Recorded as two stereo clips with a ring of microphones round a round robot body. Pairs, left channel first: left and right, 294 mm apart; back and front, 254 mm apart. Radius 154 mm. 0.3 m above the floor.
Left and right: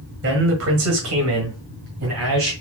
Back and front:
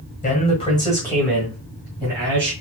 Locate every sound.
0.2 s a man speaking: 125° right, 1.8 m; by 2.5 s 65° right, 2.5 m